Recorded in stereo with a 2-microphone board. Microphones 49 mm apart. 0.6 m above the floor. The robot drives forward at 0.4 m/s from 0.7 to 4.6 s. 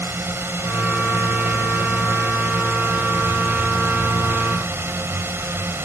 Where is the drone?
50° right (ahead or behind); by 5.9 s 55° right (ahead or behind).